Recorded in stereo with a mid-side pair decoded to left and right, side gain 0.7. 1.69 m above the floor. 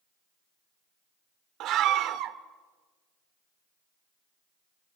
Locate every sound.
1.6 s a scream: 55° right, 1.5 m